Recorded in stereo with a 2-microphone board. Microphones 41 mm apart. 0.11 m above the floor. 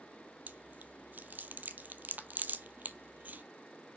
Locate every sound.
0.5 s chewing: 55° right (ahead or behind), 0.5 m